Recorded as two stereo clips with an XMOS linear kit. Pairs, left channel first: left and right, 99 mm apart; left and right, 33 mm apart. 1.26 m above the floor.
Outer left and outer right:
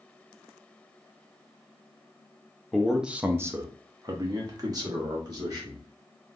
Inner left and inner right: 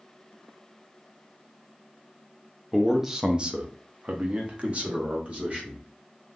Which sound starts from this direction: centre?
A man speaking, at 2.7 s.